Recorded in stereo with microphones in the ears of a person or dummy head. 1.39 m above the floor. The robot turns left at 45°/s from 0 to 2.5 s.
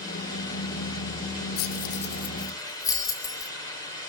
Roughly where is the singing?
I don't hear singing.